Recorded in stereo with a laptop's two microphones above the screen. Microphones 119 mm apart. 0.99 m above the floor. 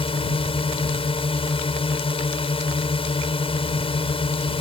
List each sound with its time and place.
0.0 s a drone: 50° left (ahead or behind)